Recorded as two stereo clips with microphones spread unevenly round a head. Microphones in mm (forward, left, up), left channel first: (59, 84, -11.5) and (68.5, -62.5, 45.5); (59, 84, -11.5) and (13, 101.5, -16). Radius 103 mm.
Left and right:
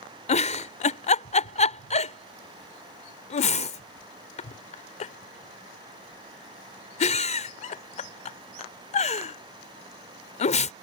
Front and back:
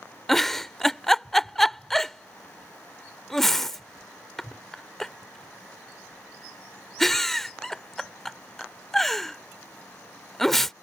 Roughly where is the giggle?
Ahead left.